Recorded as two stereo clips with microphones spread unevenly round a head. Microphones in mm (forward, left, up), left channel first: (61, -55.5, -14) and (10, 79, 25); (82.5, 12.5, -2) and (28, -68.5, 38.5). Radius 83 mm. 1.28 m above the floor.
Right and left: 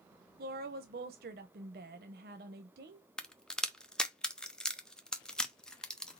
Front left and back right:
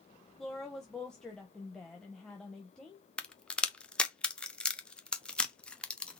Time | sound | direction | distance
0.4 | a woman speaking | 145° left | 0.5 m
3.2 | a crack | straight ahead | 0.8 m